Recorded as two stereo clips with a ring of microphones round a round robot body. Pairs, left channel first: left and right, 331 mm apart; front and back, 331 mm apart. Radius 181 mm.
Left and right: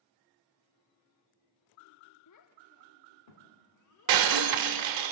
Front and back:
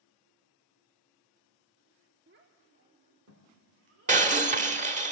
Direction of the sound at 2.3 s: 120° left.